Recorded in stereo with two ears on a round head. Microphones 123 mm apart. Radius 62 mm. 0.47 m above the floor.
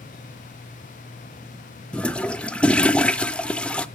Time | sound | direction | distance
1.9 | a toilet flushing | 10° left (ahead or behind) | 0.5 m